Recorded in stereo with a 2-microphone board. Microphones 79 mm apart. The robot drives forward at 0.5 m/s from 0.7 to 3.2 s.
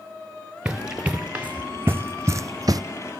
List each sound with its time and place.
0.7 s running footsteps: 15° right (ahead or behind), 1.5 m; by 2.8 s 55° right (ahead or behind), 0.6 m